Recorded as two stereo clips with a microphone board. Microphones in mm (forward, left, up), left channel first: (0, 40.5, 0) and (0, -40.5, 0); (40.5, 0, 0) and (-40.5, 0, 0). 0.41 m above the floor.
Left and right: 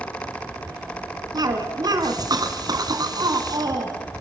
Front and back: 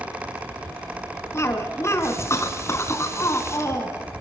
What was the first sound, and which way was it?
A cough, 55° right.